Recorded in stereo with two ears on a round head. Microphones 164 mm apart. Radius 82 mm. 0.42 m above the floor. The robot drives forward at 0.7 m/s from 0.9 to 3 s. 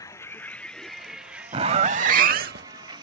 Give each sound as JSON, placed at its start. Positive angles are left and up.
{"t": 0.0, "sound": "a vehicle", "side_deg": 20}
{"t": 1.5, "sound": "a zipper", "side_deg": -35}